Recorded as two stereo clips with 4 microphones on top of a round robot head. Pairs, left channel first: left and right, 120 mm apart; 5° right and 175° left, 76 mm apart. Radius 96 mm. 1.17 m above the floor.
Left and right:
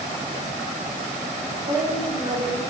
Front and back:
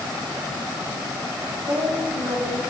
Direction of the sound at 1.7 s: 125° right.